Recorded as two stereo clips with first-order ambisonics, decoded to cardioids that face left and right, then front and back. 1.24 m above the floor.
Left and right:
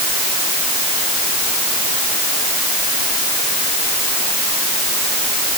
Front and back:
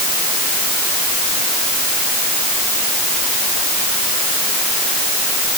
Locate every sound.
Only background noise.